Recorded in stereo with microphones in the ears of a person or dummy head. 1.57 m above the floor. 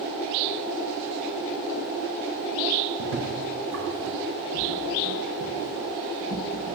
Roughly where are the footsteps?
Right.